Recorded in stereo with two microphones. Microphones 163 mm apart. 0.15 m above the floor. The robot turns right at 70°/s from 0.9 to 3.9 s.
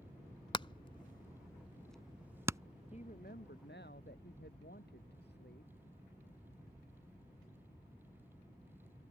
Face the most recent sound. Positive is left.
turn(degrees=105)